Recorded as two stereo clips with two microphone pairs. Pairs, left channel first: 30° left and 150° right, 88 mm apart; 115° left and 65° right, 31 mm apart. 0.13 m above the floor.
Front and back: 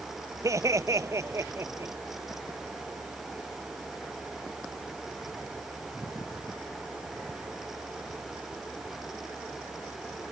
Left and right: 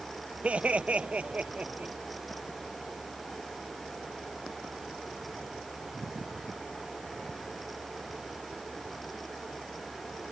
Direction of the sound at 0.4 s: 105° right.